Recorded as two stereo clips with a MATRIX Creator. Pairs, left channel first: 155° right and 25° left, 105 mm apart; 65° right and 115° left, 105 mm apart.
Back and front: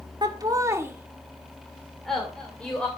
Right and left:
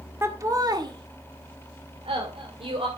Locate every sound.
0.2 s laughter: 55° left, 1.7 m; by 2.9 s 125° left, 3 m